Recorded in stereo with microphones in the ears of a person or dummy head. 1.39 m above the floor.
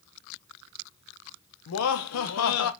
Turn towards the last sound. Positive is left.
turn(degrees=75)  # may be behind; listen again after turning